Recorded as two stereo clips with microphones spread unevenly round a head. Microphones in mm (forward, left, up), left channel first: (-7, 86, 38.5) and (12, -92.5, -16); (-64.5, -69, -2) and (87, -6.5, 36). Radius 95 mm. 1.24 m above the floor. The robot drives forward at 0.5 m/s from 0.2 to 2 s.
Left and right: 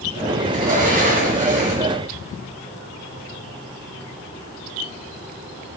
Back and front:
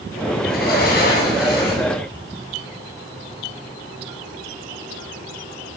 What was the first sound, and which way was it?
A sliding door, 130° right.